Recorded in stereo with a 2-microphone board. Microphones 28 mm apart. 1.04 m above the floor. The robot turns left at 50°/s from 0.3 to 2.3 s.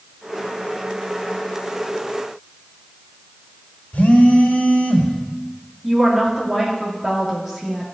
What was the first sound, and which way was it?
A phone buzzing, 80° left.